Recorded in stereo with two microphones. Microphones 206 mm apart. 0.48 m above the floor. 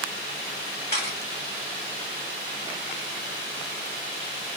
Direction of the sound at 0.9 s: 50° left (ahead or behind).